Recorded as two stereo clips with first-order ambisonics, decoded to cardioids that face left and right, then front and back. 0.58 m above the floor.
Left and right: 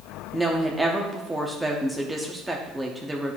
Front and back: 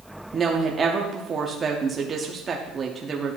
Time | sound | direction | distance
0.3 | a woman speaking | 165° right | 0.7 m